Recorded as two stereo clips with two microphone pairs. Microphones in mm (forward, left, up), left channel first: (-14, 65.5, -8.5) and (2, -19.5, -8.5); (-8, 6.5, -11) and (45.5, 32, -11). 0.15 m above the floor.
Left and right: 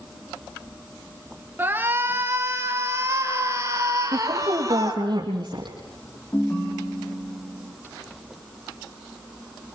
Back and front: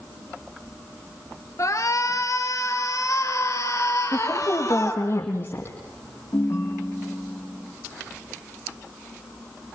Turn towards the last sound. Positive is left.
turn(degrees=165)